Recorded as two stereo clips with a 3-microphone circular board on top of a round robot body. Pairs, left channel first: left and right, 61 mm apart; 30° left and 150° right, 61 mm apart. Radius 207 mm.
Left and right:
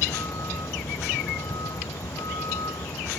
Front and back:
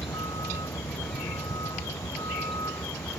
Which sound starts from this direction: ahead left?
A vehicle, at 0.0 s.